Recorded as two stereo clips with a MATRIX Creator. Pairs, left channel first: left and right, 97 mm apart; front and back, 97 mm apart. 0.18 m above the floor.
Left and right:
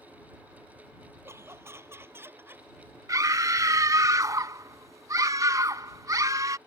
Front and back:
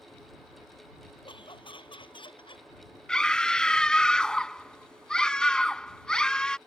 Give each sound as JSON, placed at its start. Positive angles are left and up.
{"t": 1.2, "sound": "laughter", "azimuth_deg": -30}
{"t": 3.1, "sound": "a scream", "azimuth_deg": -75}